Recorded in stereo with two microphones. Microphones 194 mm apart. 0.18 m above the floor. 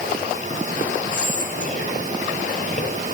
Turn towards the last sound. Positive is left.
turn(degrees=45)  # may be behind; listen again after turning